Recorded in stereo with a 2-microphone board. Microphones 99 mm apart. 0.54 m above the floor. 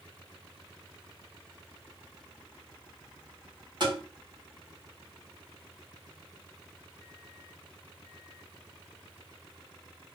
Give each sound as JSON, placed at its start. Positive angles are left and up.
{"t": 3.8, "sound": "tapping", "side_deg": -50, "distance_m": 1.5}